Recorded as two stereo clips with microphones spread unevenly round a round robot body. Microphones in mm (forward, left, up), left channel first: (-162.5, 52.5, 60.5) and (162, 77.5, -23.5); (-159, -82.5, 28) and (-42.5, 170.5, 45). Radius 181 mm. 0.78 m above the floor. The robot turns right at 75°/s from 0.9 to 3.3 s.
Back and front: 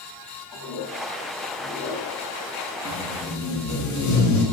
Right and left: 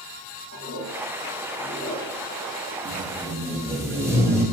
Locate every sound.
0.5 s a toilet flushing: 135° right, 1.5 m; by 2.8 s 5° left, 1.5 m
2.9 s tape being pulled: 115° left, 1.1 m; by 4.4 s 150° left, 1.1 m